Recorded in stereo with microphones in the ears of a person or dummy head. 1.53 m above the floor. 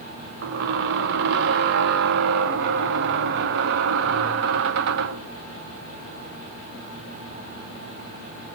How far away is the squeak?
About 0.7 m.